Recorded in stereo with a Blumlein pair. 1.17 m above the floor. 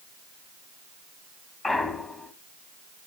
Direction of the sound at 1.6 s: 15° left.